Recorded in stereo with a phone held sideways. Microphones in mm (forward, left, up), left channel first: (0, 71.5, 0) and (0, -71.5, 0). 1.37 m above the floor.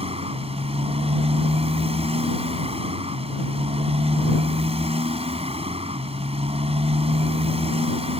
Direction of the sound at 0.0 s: 45° right (ahead or behind).